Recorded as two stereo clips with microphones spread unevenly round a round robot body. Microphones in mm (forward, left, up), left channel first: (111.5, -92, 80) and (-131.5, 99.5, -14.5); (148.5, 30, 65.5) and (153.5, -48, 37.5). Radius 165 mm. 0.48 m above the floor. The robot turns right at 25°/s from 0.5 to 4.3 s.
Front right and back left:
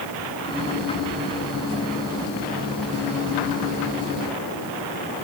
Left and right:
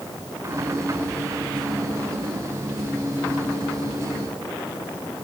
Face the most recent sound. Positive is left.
No sound to turn to.